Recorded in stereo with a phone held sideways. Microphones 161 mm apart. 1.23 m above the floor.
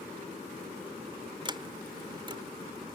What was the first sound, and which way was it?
A sliding door, 30° right (ahead or behind).